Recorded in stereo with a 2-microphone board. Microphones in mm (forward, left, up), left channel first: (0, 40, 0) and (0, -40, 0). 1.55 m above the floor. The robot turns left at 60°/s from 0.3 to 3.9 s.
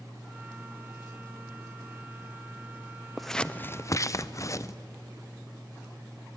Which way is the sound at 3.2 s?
5° right (ahead or behind).